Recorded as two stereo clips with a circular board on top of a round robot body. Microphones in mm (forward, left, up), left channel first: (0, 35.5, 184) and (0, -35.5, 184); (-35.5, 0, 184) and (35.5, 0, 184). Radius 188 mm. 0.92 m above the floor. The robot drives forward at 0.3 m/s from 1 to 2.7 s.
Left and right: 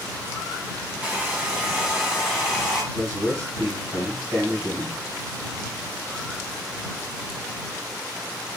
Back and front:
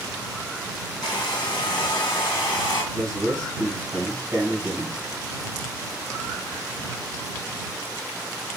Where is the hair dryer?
165° right, 0.5 m; by 2.8 s 175° right, 1.0 m.